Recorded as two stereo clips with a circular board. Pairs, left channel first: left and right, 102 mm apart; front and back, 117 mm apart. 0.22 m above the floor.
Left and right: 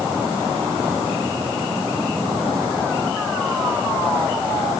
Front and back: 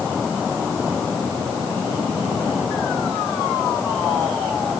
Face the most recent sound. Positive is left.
No sound to turn to.